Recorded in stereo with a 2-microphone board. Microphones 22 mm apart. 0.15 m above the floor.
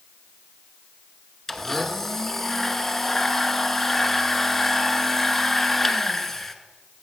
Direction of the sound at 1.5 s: 20° left (ahead or behind).